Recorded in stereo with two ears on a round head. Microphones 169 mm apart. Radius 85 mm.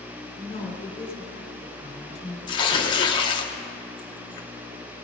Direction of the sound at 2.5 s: 25° left (ahead or behind).